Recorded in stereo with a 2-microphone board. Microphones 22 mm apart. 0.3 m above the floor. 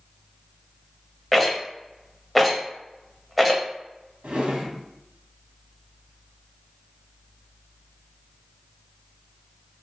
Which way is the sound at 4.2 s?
65° right (ahead or behind).